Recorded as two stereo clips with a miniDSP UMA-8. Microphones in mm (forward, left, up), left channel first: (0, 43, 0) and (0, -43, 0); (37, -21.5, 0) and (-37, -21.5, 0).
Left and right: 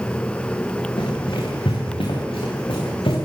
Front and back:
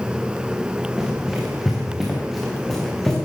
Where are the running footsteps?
95° left, 8.5 m; by 3.2 s 85° left, 8.5 m.